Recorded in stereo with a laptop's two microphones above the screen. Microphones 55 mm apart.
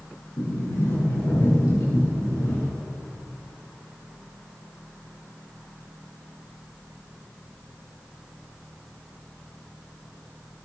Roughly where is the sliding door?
Left.